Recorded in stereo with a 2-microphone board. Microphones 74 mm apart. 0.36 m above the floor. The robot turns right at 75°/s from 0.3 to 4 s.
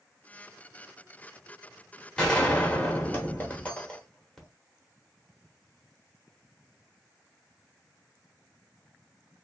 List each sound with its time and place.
2.2 s a gunshot: 10° left (ahead or behind), 0.9 m